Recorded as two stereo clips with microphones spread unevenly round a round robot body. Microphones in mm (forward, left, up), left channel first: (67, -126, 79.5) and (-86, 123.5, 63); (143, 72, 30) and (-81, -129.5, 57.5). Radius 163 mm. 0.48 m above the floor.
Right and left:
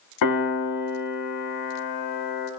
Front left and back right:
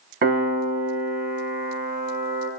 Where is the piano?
75° right, 1.8 m.